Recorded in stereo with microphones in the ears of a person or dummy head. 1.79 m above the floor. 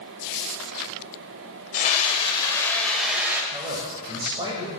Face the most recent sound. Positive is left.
turn(degrees=-25)  # may be behind; listen again after turning